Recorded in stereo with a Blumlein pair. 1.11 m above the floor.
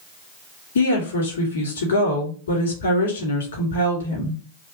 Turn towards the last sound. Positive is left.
turn(degrees=65)